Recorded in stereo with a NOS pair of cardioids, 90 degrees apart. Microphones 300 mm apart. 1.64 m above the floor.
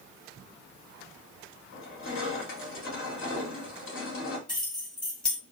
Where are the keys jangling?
15° left, 1.9 m.